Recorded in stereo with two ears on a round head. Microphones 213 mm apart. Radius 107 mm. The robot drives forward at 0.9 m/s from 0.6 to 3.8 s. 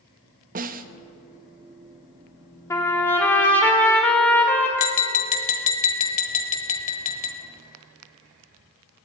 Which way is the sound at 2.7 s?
10° left (ahead or behind).